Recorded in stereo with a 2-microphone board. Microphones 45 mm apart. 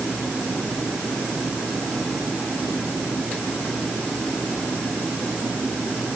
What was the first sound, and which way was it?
Only background noise.